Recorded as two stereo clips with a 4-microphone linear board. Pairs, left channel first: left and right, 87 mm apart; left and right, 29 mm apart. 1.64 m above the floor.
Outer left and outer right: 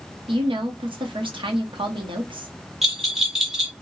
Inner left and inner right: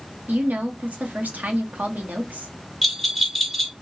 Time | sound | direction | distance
0.3 | a woman speaking | 70° right (ahead or behind) | 1.2 m
2.8 | a bell | 5° right (ahead or behind) | 1.1 m